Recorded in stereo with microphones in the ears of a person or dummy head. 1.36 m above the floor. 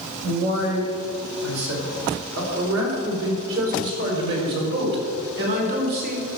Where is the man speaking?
85° right, 4.5 m; by 6.2 s 45° right (ahead or behind), 4 m.